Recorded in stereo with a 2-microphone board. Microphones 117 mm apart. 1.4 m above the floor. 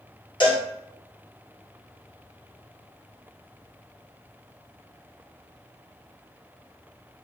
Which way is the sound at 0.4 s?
40° left (ahead or behind).